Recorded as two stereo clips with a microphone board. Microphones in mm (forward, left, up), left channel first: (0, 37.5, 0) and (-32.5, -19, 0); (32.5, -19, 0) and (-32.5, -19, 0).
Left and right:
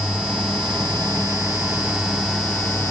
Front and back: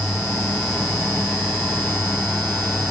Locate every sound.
Only background noise.